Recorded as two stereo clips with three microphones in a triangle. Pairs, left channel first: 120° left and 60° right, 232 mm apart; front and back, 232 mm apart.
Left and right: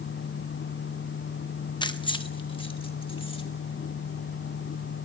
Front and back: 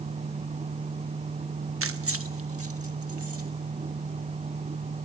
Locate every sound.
1.8 s keys jangling: 170° right, 0.8 m